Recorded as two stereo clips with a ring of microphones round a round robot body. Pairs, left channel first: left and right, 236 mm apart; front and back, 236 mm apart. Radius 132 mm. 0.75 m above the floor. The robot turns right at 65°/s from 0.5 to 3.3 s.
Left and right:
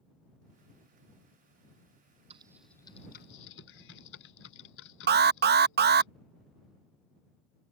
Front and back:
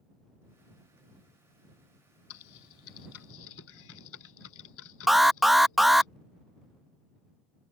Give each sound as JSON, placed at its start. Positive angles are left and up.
{"t": 2.3, "sound": "typing on a keyboard", "azimuth_deg": -20}
{"t": 5.1, "sound": "an alarm", "azimuth_deg": -90}